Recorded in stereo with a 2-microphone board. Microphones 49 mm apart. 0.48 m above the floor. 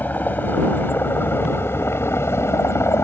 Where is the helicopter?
35° left (ahead or behind); by 3.0 s 60° left (ahead or behind).